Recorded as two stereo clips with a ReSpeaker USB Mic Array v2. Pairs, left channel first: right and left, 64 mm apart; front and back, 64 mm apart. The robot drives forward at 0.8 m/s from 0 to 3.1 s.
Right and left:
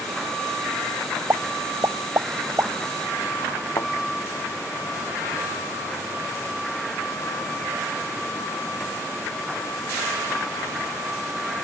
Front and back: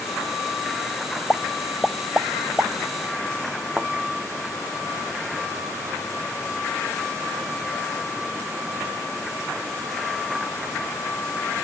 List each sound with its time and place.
1.3 s a pop: 65° left; by 2.7 s 125° left
3.8 s a thud: 110° right